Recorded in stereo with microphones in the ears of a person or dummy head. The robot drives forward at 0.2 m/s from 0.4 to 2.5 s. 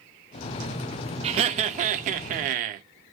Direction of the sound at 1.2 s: 35° right (ahead or behind).